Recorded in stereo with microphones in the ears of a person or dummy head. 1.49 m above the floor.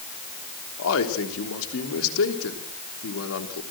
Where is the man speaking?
80° left, 3 m.